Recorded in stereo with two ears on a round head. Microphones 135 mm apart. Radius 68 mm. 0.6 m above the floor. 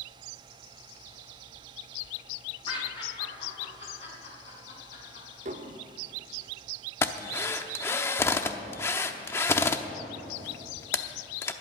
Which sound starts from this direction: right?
Dishes clattering, at 5.5 s.